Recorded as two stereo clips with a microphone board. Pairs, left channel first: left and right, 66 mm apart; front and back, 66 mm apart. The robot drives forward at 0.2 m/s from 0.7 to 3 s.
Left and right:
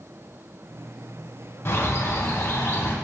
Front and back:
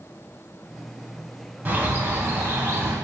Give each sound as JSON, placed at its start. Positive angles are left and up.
{"t": 1.6, "sound": "a bird", "azimuth_deg": 125, "distance_m": 0.7}